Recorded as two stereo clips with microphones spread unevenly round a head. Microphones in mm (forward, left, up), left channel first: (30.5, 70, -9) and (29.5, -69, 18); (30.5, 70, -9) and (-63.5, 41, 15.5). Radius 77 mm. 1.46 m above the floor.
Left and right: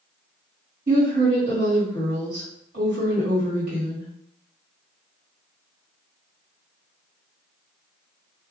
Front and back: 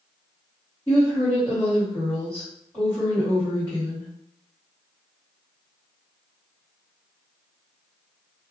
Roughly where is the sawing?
I don't hear sawing.